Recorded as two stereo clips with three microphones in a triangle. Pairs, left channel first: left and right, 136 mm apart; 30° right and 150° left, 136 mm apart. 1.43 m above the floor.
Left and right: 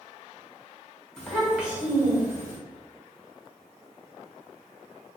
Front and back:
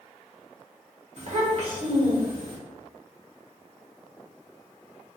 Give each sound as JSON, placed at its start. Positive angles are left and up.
{"t": 1.2, "sound": "a child speaking", "azimuth_deg": 175, "distance_m": 1.2}